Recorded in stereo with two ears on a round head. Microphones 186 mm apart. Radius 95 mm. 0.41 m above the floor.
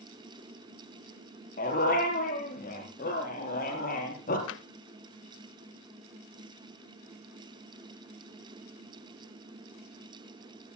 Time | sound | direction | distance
1.6 | a dog barking | 40° left (ahead or behind) | 4.5 m
4.5 | tapping | 65° left (ahead or behind) | 0.5 m